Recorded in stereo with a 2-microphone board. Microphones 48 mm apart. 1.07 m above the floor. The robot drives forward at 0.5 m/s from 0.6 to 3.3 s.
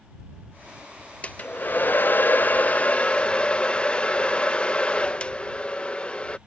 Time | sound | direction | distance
1.2 | a hair dryer | 30° left (ahead or behind) | ?